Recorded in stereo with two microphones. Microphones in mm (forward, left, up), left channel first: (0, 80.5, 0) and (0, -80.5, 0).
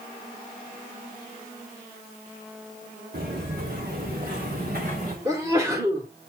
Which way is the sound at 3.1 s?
85° right.